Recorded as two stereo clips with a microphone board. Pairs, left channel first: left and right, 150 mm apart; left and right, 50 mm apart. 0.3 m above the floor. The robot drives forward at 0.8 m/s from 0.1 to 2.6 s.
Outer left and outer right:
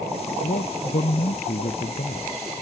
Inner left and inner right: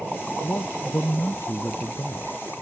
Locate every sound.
0.4 s a man speaking: 65° left (ahead or behind); by 2.4 s 60° left (ahead or behind)